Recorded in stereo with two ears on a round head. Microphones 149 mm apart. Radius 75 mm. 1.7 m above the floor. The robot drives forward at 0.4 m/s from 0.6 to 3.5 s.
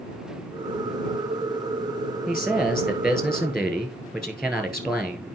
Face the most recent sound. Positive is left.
turn(degrees=5)  # may be behind; listen again after turning